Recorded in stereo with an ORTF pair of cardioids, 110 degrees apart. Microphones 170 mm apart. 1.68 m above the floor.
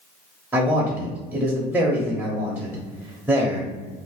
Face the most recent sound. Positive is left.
turn(degrees=-10)